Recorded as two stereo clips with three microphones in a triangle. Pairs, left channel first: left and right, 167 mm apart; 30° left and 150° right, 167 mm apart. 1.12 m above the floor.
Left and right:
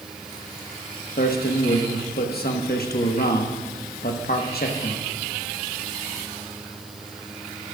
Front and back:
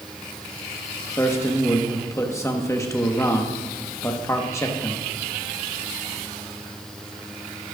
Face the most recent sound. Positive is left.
turn(degrees=100)